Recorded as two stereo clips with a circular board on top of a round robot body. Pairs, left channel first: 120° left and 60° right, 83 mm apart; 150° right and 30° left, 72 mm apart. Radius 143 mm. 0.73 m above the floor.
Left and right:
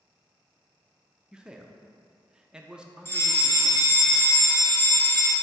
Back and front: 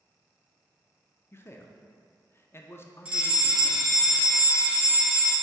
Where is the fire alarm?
95° left, 1.8 m.